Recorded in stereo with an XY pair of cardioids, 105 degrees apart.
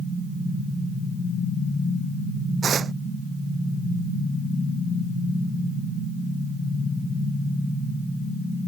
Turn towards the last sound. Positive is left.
turn(degrees=-50)